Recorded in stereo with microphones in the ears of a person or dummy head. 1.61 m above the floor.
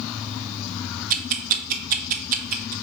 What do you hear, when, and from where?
1.1 s ticking: 50° right (ahead or behind), 0.7 m